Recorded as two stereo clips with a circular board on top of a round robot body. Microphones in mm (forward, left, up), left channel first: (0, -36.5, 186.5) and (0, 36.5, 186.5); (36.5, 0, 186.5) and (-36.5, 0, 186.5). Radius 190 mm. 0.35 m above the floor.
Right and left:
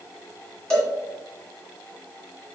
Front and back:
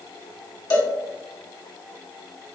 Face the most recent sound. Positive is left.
turn(degrees=-10)